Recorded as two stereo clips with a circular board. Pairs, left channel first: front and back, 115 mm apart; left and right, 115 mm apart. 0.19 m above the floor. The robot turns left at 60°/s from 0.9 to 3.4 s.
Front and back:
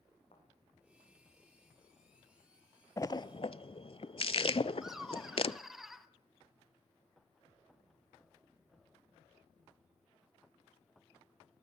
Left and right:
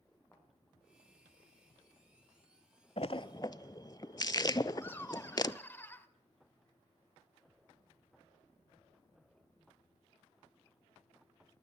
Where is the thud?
20° left, 5.5 m.